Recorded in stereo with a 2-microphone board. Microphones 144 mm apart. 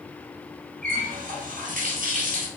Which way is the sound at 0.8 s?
70° right (ahead or behind).